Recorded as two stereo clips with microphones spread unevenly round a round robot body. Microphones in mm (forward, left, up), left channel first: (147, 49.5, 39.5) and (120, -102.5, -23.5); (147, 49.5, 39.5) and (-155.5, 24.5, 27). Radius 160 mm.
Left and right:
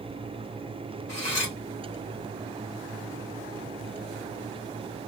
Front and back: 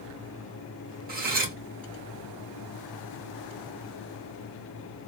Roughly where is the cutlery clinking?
Behind left.